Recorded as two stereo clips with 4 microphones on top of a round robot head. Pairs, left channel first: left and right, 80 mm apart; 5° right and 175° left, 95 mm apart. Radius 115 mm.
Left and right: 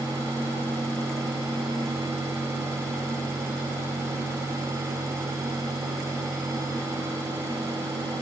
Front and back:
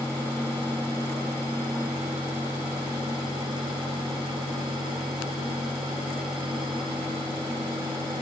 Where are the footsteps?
No footsteps in this recording.